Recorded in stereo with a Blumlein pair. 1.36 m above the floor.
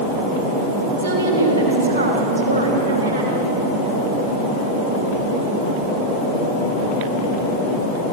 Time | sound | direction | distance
1.0 | a woman speaking | 70° right | 4.5 m